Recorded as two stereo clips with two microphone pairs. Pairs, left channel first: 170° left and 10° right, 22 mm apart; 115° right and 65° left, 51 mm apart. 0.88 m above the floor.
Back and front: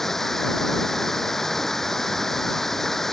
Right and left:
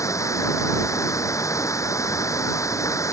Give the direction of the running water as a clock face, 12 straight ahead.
4 o'clock.